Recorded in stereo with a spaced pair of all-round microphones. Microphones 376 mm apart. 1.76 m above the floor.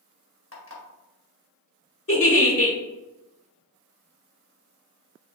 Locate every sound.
0.5 s an alarm clock: 35° left (ahead or behind), 1.3 m
2.1 s a giggle: 35° left (ahead or behind), 1.1 m